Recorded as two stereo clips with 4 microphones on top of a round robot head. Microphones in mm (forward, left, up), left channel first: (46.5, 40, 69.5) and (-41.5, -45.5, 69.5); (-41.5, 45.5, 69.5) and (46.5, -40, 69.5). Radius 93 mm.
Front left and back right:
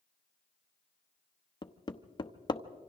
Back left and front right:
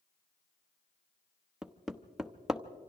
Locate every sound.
1.6 s hammering: 40° left, 1.0 m